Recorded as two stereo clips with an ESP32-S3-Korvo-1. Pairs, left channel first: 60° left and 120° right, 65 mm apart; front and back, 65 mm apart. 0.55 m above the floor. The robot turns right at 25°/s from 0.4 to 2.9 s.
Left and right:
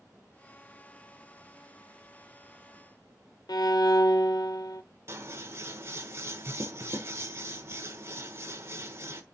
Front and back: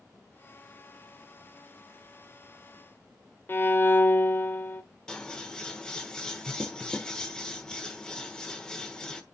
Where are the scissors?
80° right, 1.2 m.